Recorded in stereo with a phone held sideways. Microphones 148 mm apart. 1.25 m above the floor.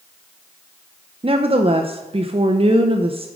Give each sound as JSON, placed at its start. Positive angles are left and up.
{"t": 1.2, "sound": "a woman speaking", "side_deg": -40, "distance_m": 0.5}